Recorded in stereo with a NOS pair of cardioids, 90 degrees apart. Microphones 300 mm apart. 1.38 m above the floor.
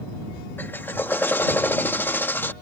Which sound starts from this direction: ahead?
A drill, at 0.6 s.